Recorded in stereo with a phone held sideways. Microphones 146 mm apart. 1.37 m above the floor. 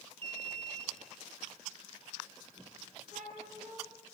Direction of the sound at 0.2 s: 40° right (ahead or behind).